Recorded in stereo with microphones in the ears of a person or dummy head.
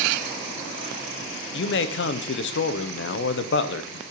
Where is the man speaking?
60° left (ahead or behind), 0.7 m.